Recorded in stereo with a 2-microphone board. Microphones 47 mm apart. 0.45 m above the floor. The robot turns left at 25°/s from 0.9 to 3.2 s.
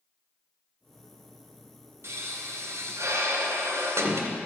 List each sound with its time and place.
2.0 s a pop: 65° right (ahead or behind), 1.7 m; by 4.3 s 85° right, 1.7 m